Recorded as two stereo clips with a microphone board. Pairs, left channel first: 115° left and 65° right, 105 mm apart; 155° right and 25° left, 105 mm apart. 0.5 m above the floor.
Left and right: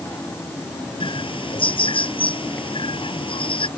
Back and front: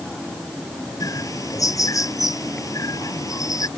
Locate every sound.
1.0 s a bird: 145° left